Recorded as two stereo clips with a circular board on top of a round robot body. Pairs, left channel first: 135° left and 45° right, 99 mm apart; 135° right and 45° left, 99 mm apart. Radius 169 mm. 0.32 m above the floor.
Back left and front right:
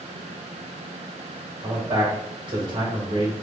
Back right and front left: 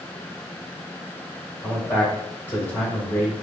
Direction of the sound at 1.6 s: 65° right.